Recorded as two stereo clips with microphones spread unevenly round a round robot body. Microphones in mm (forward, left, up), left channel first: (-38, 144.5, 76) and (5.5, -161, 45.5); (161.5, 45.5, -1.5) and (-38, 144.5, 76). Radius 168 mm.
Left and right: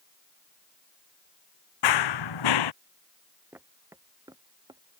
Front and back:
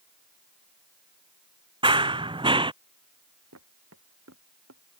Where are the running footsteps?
90° left.